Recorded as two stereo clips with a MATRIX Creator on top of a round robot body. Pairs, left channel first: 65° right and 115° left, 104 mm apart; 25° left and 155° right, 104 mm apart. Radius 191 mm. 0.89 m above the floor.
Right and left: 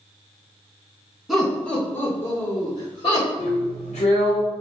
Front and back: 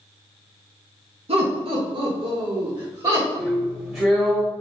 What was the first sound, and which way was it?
Laughter, 160° right.